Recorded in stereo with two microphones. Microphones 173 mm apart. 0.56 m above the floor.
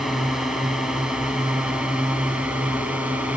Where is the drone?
Centre (ahead or behind); by 3.4 s 5° right (ahead or behind).